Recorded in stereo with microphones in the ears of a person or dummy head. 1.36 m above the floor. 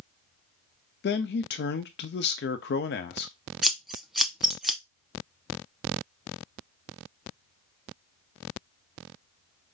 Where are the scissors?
Centre (ahead or behind), 0.5 m.